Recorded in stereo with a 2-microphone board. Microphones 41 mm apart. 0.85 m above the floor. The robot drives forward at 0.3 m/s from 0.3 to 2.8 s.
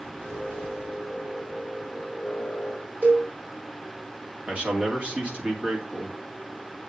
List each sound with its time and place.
3.0 s a cowbell: 45° right (ahead or behind), 3 m
4.5 s a man speaking: 30° right (ahead or behind), 2 m